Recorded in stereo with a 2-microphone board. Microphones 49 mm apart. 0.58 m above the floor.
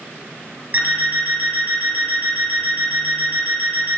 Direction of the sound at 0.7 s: 40° right (ahead or behind).